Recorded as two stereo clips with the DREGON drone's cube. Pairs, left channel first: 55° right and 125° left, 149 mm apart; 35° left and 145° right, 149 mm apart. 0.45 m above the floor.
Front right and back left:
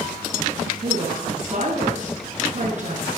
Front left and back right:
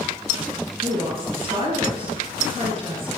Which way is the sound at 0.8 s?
160° left.